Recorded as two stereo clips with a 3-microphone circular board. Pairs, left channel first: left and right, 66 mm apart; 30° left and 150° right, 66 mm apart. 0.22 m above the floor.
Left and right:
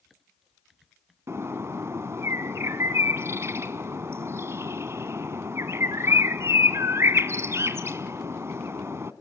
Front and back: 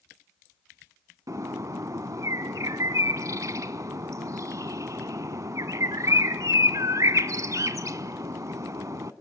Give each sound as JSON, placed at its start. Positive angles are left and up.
{"t": 1.3, "sound": "a bird", "azimuth_deg": -130, "distance_m": 0.7}